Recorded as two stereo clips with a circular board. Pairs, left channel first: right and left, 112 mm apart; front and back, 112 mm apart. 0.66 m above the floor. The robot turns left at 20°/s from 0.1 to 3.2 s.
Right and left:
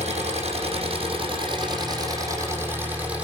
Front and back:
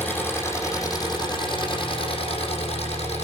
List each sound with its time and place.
0.0 s an engine running: 70° left, 8.5 m; by 3.2 s 10° left, 8.5 m